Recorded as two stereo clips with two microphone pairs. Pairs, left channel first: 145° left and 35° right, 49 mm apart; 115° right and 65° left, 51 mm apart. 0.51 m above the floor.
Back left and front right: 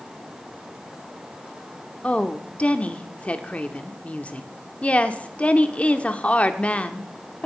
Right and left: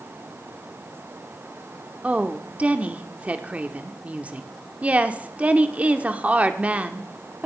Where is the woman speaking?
105° left, 1.1 m.